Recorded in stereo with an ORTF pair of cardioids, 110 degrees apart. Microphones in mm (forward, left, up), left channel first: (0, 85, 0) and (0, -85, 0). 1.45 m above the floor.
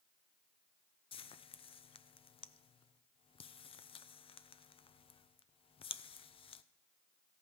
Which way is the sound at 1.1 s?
35° left.